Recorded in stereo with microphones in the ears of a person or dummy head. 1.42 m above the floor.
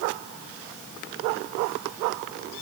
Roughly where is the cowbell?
No cowbell in this recording.